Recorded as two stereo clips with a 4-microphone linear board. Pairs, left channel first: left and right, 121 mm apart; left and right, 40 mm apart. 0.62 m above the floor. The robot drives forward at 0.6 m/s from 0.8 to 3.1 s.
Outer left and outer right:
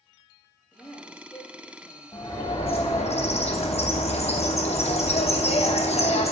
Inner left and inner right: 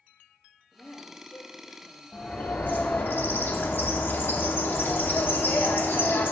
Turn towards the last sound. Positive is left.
turn(degrees=60)  # may be behind; listen again after turning